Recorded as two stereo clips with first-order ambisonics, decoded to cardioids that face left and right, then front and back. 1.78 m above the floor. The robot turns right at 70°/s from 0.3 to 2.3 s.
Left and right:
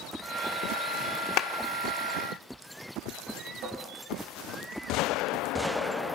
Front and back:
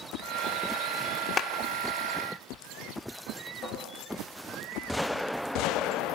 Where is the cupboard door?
55° right, 6 m.